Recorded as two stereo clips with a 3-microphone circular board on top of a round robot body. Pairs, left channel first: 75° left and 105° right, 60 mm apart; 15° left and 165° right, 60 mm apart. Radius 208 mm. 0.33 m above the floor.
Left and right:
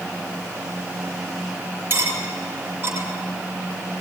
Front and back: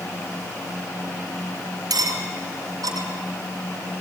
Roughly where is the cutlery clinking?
Behind.